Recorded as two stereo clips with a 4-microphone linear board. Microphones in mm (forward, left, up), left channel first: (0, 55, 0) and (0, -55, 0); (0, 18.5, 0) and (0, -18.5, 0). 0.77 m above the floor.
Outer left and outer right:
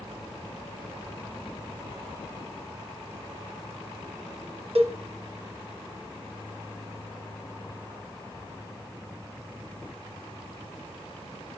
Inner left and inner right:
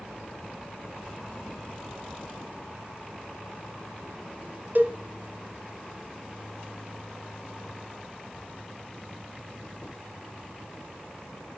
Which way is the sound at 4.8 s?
60° right (ahead or behind).